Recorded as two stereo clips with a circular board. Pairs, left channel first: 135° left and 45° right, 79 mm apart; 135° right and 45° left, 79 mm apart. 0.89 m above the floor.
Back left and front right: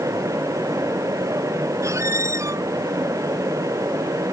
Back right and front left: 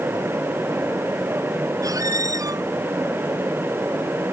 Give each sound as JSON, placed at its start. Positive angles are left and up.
{"t": 1.8, "sound": "a squeak", "azimuth_deg": 5}